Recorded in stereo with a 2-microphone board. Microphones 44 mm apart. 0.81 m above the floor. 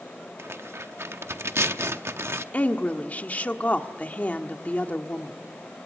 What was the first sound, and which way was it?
Tearing paper, 70° right (ahead or behind).